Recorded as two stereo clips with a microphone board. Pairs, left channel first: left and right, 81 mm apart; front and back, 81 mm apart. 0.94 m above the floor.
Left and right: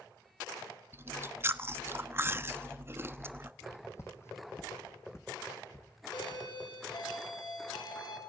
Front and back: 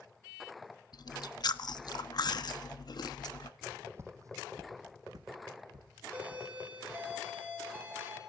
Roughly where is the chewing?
Ahead right.